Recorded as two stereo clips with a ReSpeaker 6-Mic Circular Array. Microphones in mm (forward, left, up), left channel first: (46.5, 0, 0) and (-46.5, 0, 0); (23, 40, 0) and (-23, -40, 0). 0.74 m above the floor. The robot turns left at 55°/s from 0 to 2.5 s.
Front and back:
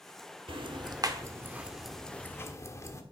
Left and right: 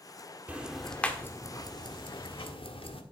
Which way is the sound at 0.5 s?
170° left.